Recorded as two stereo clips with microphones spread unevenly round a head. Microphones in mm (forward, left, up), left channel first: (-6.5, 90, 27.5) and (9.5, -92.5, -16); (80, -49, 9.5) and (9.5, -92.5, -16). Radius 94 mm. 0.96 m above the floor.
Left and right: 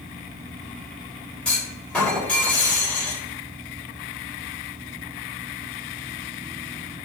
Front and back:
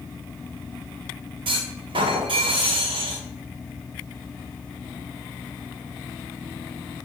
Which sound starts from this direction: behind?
A clunk, at 1.4 s.